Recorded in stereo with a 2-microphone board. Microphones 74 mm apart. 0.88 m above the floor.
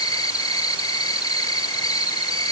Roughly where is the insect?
Left.